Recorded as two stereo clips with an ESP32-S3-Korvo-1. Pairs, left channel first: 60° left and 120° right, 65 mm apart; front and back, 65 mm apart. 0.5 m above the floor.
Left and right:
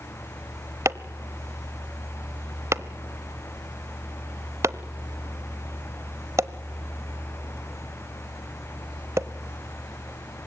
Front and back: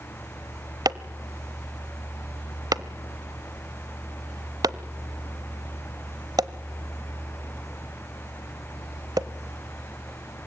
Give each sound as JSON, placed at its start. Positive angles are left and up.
{"t": 0.8, "sound": "chopping", "azimuth_deg": -165, "distance_m": 0.9}